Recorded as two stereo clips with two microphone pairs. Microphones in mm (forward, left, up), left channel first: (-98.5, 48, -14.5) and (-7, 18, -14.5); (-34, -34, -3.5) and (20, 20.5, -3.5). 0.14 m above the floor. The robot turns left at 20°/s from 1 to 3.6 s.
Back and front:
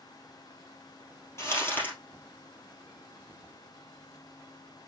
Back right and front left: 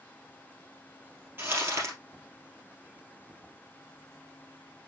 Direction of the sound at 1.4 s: 105° left.